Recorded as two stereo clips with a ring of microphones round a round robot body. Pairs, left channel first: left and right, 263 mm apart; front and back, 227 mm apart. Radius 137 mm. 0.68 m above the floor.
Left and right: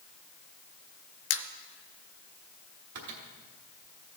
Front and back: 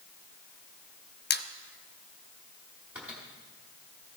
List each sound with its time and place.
1.3 s a squeak: 45° left, 0.5 m
3.0 s a microwave: 95° right, 1.3 m